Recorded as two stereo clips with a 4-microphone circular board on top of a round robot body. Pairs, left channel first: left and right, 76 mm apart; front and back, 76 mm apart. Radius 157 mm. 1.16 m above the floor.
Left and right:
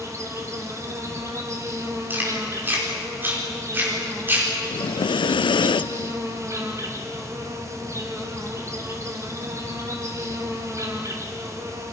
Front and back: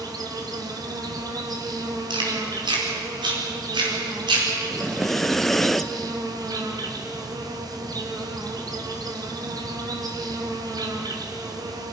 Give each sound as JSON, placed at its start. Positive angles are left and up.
{"t": 0.0, "sound": "an insect", "azimuth_deg": -140, "distance_m": 3.0}
{"t": 2.1, "sound": "chewing", "azimuth_deg": -155, "distance_m": 5.0}
{"t": 4.7, "sound": "breathing", "azimuth_deg": 85, "distance_m": 0.5}